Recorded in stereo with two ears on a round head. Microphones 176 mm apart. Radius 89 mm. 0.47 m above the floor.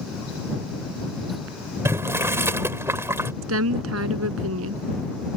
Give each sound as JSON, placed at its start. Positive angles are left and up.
{"t": 1.9, "sound": "boiling", "side_deg": -15}
{"t": 3.4, "sound": "a woman speaking", "side_deg": -80}